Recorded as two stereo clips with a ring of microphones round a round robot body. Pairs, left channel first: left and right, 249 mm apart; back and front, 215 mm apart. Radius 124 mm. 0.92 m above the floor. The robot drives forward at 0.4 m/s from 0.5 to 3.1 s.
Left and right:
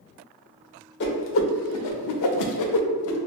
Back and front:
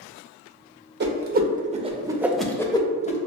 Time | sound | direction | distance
1.0 | a whoosh | 40° left | 0.8 m